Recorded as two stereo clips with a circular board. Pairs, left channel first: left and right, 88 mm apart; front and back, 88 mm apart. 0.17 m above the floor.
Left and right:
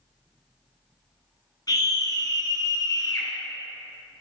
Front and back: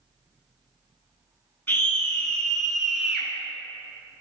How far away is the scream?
About 1.9 m.